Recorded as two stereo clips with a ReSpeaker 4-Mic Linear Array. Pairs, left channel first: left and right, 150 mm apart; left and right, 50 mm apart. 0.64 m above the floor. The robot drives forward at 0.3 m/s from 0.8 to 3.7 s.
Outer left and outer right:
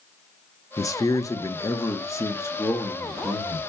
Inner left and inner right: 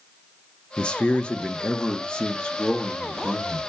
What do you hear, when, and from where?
0.8 s a man speaking: 20° left (ahead or behind), 0.6 m; by 3.7 s 15° left (ahead or behind), 1.0 m